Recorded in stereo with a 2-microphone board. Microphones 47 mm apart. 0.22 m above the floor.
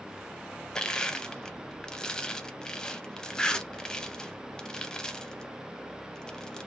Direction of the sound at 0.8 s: 20° left (ahead or behind).